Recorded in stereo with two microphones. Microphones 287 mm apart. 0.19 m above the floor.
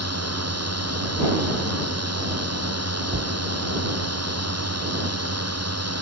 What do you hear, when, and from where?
0.0 s a drone: 65° right (ahead or behind)
3.1 s a cupboard door: 45° right (ahead or behind)